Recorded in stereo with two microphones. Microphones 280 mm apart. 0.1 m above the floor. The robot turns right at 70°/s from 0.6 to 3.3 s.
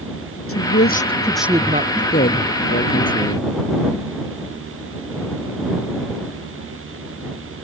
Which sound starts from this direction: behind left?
A woman speaking, at 0.5 s.